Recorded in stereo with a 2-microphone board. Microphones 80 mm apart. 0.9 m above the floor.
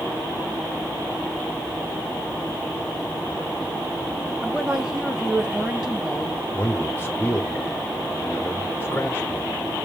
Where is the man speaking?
25° left (ahead or behind), 1.0 m.